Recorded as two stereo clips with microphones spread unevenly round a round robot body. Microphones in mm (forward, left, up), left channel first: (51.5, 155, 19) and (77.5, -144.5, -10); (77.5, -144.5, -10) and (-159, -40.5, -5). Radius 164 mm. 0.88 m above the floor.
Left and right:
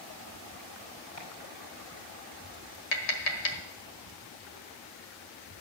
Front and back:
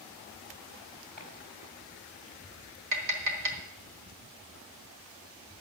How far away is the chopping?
About 4.5 m.